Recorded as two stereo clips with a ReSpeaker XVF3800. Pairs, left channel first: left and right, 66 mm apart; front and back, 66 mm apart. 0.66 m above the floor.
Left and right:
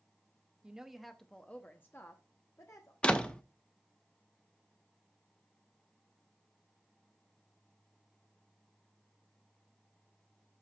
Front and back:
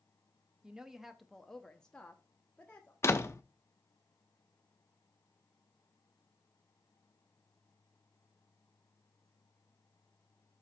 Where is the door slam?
20° left, 0.7 m.